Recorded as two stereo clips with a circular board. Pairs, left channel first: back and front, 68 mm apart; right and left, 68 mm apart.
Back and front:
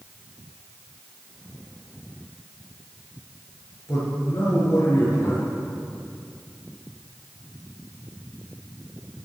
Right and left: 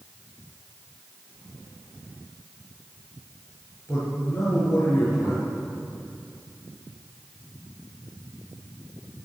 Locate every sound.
3.9 s a man speaking: 140° right, 5.5 m